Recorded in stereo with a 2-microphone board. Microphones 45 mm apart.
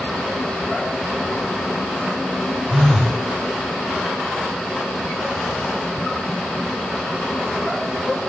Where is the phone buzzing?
Centre (ahead or behind), 0.6 m.